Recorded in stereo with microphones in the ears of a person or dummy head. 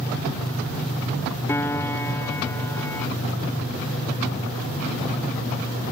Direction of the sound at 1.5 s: 10° left (ahead or behind).